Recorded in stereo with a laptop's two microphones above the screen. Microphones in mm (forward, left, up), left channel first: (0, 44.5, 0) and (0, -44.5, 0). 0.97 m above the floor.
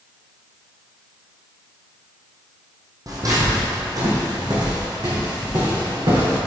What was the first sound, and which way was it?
Footsteps, 40° right (ahead or behind).